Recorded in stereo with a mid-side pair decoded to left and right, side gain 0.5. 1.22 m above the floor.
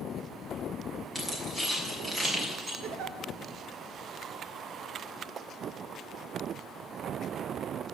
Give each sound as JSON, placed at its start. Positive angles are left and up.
{"t": 1.1, "sound": "keys jangling", "azimuth_deg": -10, "distance_m": 6.0}
{"t": 2.8, "sound": "a giggle", "azimuth_deg": -70, "distance_m": 2.5}